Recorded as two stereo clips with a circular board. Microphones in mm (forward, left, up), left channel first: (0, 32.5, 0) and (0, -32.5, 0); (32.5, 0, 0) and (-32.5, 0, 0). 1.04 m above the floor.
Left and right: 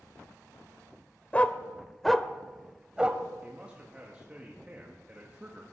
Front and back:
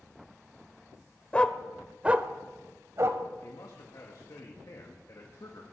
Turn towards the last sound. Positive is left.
turn(degrees=-20)